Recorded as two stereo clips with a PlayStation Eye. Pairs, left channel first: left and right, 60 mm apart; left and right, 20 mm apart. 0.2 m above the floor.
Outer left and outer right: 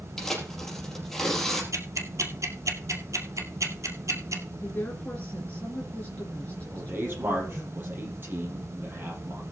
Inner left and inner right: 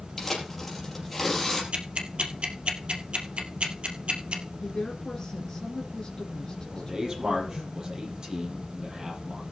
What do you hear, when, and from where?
0.2 s tearing paper: 5° left (ahead or behind), 4.5 m
1.7 s ticking: 60° right (ahead or behind), 2 m
4.6 s a woman speaking: 25° left (ahead or behind), 3 m
6.7 s a man speaking: 35° right (ahead or behind), 5 m